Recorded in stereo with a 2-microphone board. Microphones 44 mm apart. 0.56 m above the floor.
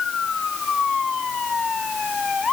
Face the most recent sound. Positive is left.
No sound to turn to.